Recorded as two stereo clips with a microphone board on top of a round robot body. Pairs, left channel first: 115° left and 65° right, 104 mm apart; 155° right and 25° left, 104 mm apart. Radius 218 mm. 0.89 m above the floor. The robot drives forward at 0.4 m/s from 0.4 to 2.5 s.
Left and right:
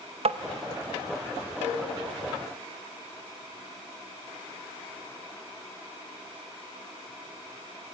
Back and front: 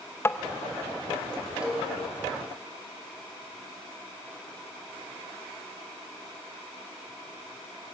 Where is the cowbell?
60° right, 4.5 m.